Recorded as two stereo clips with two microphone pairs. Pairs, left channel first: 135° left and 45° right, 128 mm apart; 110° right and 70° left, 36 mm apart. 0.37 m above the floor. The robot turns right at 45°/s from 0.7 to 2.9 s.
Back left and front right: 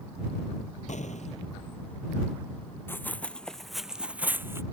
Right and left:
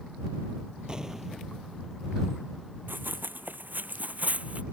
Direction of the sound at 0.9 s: 135° left.